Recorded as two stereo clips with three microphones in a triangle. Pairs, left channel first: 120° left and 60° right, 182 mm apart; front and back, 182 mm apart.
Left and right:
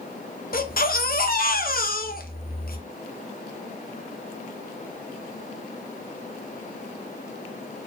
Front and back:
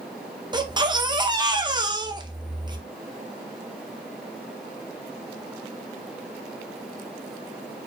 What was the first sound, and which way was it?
A baby crying, 120° left.